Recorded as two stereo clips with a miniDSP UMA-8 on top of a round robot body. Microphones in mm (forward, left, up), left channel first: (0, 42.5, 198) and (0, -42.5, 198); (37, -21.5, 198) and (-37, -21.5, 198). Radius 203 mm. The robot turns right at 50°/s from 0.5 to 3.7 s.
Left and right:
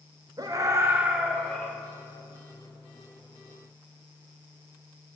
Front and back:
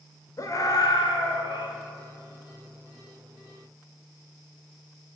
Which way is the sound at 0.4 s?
45° right.